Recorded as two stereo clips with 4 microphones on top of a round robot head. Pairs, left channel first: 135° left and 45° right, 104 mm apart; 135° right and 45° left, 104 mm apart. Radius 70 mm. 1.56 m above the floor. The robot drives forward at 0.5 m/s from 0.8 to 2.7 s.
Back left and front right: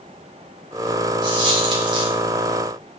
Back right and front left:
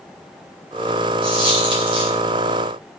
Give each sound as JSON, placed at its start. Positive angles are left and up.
{"t": 1.2, "sound": "a dropped coin", "azimuth_deg": 0, "distance_m": 3.5}